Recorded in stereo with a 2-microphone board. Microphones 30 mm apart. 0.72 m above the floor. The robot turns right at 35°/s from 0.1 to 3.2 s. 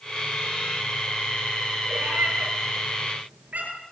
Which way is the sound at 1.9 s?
80° right.